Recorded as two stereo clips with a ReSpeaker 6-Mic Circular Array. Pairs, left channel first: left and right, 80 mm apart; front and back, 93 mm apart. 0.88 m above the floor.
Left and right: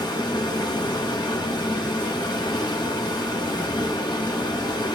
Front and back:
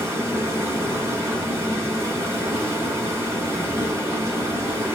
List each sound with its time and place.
0.0 s running water: 120° left, 4 m